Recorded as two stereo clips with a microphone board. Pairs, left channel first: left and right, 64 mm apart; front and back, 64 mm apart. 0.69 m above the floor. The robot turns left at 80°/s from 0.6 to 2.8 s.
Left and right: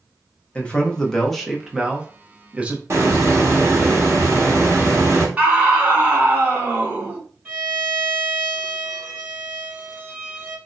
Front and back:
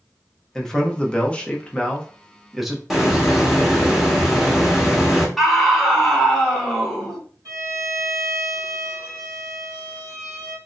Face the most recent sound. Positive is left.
turn(degrees=-150)